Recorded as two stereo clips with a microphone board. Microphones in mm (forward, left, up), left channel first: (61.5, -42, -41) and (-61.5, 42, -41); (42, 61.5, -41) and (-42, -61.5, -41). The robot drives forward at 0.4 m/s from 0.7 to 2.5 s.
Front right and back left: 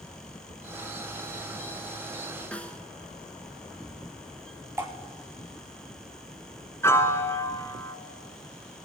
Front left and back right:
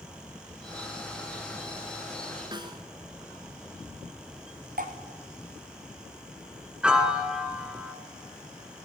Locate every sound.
2.5 s a snare drum: 105° right, 1.2 m
4.8 s dripping: 140° right, 1.9 m
6.8 s a piano: 55° right, 1.0 m